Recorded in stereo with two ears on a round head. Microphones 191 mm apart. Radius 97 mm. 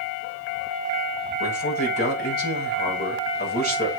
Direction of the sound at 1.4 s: 45° left (ahead or behind).